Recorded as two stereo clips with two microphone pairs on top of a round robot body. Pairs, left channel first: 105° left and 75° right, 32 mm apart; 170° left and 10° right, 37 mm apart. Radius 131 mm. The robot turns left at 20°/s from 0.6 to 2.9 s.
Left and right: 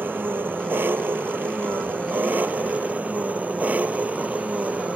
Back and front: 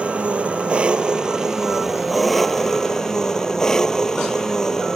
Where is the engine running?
70° right; by 5.0 s 115° right.